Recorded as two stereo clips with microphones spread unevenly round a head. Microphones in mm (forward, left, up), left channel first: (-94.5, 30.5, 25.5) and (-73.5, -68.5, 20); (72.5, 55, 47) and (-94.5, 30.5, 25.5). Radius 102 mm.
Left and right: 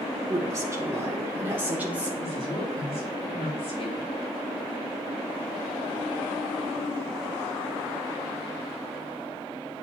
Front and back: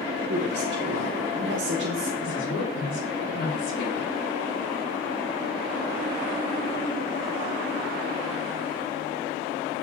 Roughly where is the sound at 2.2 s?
Ahead left.